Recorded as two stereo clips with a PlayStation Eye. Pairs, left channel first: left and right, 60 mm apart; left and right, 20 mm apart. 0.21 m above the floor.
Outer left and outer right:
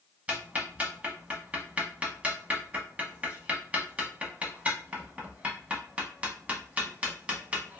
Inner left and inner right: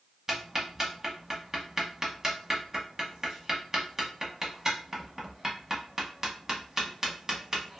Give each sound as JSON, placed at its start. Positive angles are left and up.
{"t": 0.3, "sound": "ticking", "side_deg": -25, "distance_m": 0.8}